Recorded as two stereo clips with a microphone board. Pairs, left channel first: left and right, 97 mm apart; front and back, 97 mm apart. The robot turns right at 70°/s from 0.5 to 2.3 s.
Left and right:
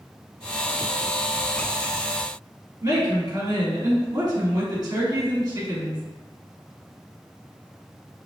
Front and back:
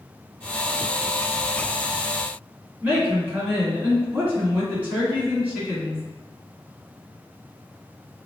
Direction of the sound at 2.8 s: 115° right.